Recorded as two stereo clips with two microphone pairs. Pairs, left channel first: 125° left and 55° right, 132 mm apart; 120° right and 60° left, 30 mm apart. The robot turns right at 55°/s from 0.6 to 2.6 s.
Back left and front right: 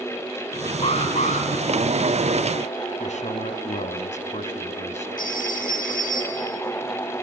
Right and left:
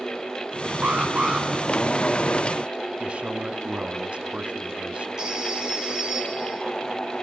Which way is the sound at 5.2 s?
130° left.